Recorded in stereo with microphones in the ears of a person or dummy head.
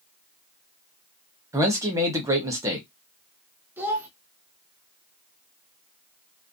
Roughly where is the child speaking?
Centre.